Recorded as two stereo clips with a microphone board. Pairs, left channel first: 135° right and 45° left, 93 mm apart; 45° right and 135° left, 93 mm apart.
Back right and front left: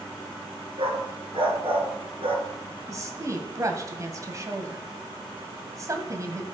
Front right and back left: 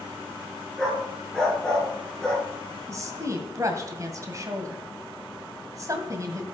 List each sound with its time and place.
0.8 s a dog barking: 35° left, 2 m
2.9 s a woman speaking: 90° left, 1.9 m